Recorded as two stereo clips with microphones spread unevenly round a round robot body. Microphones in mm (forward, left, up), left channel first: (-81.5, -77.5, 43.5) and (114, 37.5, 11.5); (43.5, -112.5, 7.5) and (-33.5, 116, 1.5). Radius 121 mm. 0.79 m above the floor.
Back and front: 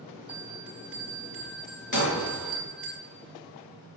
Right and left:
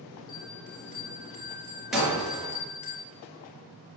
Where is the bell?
55° right, 6.5 m.